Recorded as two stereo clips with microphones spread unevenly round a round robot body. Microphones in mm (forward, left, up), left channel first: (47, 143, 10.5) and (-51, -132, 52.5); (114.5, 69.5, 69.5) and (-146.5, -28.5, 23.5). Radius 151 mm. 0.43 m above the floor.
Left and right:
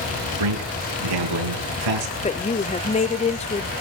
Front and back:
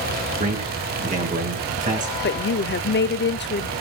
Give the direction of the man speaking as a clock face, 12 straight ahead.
3 o'clock.